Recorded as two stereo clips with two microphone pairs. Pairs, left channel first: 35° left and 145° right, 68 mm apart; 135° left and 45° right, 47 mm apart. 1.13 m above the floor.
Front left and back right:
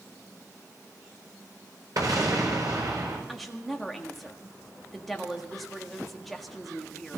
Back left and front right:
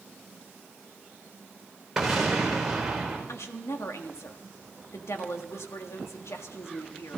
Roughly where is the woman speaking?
Behind left.